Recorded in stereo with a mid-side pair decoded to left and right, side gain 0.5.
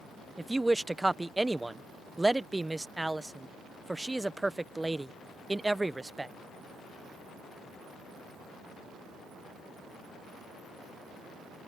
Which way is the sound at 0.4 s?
5° right.